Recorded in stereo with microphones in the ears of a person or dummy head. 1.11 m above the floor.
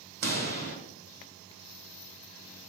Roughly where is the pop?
Right.